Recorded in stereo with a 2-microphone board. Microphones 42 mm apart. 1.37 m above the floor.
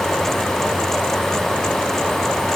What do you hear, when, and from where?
Only background noise.